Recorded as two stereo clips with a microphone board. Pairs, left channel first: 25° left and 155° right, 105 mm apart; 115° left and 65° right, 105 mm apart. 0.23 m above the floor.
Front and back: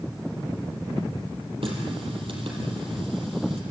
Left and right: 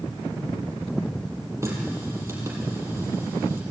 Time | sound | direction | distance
1.6 | a running tap | 130° right | 5 m